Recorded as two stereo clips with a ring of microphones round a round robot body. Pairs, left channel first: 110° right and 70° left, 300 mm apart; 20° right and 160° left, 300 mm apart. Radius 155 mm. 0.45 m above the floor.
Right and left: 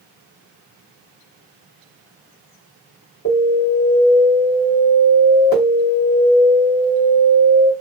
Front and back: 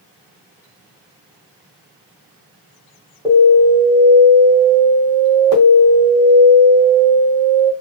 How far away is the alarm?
About 1.9 m.